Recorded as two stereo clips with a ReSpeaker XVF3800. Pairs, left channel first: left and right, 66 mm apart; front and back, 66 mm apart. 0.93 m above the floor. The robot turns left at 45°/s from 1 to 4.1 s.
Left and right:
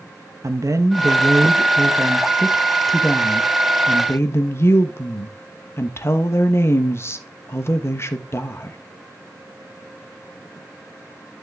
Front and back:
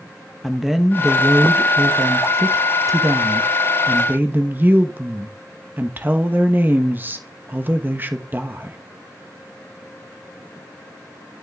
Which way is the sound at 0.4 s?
90° right.